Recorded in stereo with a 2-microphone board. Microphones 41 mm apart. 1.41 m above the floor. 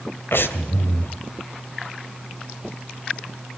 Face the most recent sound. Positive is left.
turn(degrees=65)  # may be behind; listen again after turning